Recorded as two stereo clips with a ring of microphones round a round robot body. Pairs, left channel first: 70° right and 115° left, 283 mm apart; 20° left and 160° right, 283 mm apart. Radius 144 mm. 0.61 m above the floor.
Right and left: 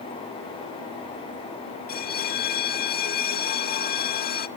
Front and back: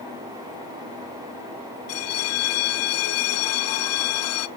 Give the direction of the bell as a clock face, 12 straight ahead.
12 o'clock.